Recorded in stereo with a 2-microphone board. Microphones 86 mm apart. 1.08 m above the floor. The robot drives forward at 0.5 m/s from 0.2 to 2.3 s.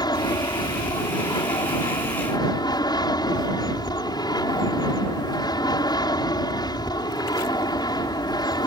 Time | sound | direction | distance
0.0 | an aircraft | 55° left (ahead or behind) | ?